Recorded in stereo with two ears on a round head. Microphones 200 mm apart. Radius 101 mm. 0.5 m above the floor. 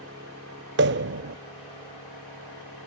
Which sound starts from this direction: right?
A pop, at 0.8 s.